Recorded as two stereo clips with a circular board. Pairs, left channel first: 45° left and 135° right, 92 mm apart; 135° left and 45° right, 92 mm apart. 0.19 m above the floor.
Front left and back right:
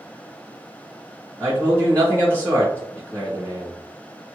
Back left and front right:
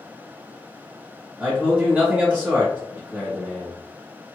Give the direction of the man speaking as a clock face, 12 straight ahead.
12 o'clock.